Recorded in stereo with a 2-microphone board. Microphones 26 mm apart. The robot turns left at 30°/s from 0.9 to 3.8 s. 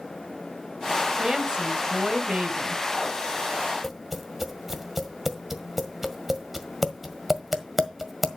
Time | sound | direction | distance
1.2 | a woman speaking | 30° right | 2 m
3.8 | tapping | 10° right (ahead or behind) | 1.5 m